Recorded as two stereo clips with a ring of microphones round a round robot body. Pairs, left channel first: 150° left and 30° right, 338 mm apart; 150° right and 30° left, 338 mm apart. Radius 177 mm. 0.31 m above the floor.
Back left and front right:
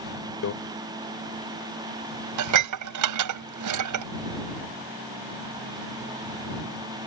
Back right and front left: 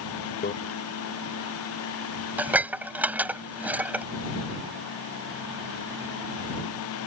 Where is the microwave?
160° left.